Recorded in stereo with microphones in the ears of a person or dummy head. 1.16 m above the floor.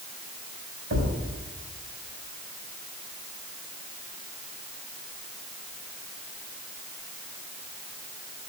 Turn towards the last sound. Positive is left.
turn(degrees=-50)  # may be behind; listen again after turning